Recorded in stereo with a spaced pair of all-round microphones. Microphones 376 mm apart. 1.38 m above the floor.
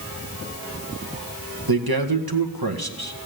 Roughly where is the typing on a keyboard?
No typing on a keyboard in this recording.